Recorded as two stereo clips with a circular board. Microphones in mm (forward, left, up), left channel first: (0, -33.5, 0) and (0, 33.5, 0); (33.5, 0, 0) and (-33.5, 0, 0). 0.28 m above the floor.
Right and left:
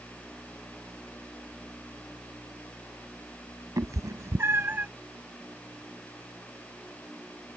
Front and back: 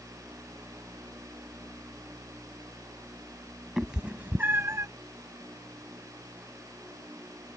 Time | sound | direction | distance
3.8 | a cat meowing | 95° left | ?